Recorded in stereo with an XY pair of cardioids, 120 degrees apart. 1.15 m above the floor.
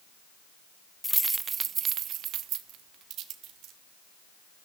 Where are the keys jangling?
5° left, 0.6 m; by 3.7 s 75° right, 3 m.